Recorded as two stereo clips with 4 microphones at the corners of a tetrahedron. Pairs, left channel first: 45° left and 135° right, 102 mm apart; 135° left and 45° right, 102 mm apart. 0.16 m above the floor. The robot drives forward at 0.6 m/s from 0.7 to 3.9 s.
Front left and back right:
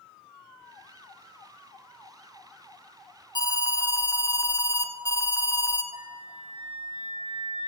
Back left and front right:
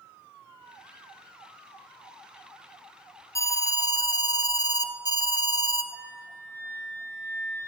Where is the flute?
160° right, 3.5 m.